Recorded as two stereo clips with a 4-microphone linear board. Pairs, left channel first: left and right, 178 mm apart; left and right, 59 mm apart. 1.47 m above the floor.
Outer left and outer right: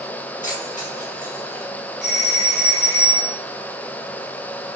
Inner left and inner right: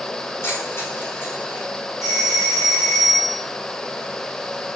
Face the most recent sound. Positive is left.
turn(degrees=70)  # may be behind; listen again after turning